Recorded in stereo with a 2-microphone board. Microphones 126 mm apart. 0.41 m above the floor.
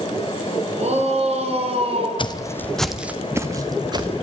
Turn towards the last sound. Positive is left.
turn(degrees=-35)  # may be behind; listen again after turning